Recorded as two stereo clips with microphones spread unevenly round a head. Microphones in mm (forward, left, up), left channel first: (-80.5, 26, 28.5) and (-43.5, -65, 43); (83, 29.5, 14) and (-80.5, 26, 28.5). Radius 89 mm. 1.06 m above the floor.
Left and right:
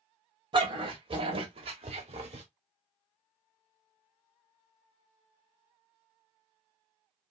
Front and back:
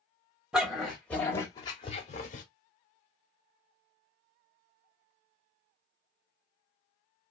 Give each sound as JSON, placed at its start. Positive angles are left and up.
{"t": 0.5, "sound": "a dog barking", "azimuth_deg": -95, "distance_m": 1.5}